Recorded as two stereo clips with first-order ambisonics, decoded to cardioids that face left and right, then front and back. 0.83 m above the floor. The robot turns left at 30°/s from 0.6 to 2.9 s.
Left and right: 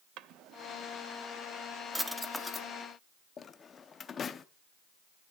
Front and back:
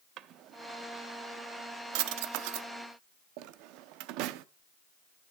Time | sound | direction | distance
0.2 | a drawer | 135° right | 0.6 m